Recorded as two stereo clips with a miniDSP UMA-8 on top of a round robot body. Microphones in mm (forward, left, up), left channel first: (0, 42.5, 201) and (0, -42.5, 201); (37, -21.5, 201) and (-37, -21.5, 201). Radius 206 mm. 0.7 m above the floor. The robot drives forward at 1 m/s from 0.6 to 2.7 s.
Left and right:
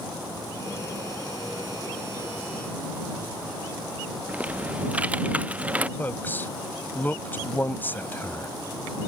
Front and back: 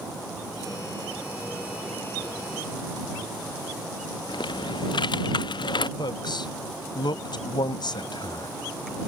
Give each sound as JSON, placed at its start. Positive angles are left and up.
{"t": 4.3, "sound": "typing on a keyboard", "azimuth_deg": -15}
{"t": 6.0, "sound": "a man speaking", "azimuth_deg": 20}